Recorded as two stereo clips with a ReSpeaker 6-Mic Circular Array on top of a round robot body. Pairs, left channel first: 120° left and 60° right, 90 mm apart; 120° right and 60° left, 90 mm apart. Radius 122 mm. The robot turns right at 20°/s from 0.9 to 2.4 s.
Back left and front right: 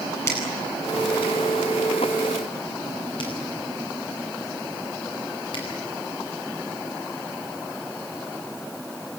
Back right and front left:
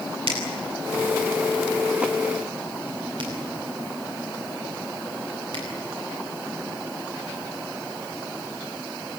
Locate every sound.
0.3 s a finger snap: 60° left, 10 m; by 5.6 s 90° left, 10 m